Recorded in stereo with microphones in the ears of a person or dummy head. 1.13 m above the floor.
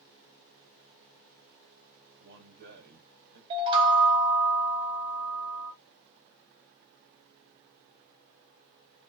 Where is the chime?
30° right (ahead or behind), 0.9 m.